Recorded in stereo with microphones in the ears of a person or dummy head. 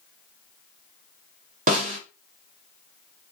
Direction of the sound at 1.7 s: 35° right (ahead or behind).